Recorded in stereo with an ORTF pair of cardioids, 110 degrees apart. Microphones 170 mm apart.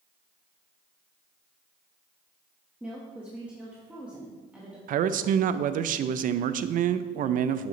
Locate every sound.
2.8 s a woman speaking: 5° right, 1.4 m
4.9 s a man speaking: 55° right, 0.5 m